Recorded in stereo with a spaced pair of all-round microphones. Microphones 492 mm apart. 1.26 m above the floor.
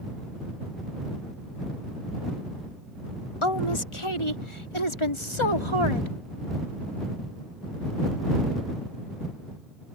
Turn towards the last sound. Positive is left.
turn(degrees=65)  # may be behind; listen again after turning